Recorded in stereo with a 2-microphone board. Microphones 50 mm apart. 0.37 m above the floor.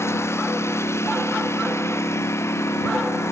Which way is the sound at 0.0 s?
70° left (ahead or behind).